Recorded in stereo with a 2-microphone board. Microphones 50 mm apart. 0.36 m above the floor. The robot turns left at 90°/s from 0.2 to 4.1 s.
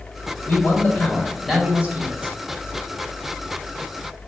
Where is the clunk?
No clunk in this recording.